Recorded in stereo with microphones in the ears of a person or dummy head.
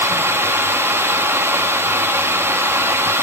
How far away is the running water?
About 1.5 m.